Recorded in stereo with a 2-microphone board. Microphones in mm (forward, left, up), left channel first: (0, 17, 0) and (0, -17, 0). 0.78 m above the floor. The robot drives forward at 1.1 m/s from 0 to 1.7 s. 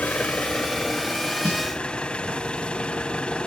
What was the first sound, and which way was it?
An engine running, 50° left (ahead or behind).